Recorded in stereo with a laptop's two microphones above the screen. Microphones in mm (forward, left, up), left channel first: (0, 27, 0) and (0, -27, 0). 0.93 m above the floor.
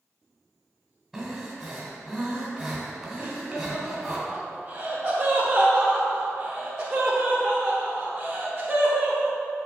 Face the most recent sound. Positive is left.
turn(degrees=-10)  # may be behind; listen again after turning